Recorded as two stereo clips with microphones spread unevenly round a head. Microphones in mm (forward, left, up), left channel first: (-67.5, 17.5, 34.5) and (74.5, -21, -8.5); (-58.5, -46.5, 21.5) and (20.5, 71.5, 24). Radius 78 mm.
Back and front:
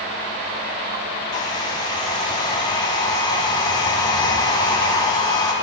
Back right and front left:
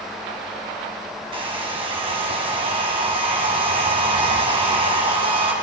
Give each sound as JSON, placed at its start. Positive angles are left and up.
{"t": 1.3, "sound": "a hair dryer", "azimuth_deg": 105, "distance_m": 2.5}